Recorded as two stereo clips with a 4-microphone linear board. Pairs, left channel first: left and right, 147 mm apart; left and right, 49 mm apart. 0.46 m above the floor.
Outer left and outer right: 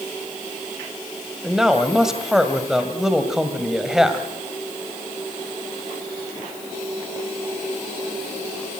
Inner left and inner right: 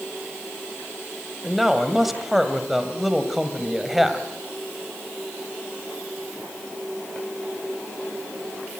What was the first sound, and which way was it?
A man speaking, 5° right (ahead or behind).